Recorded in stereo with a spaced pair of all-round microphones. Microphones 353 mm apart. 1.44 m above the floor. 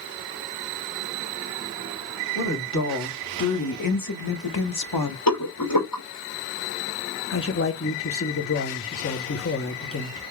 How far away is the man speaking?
About 0.9 m.